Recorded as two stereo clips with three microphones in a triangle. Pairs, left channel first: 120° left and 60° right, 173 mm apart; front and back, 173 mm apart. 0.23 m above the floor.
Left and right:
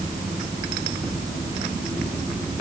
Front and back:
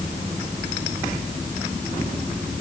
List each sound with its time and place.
Only background noise.